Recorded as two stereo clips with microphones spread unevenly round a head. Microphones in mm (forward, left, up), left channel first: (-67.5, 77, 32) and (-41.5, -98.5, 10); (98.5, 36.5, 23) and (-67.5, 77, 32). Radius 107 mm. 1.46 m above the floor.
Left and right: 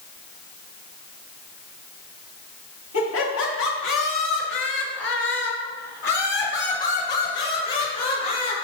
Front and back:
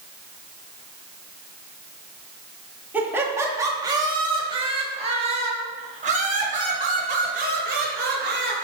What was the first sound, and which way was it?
Laughter, 85° left.